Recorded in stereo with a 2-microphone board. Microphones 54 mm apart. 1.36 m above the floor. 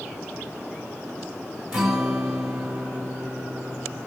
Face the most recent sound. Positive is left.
turn(degrees=-15)  # may be behind; listen again after turning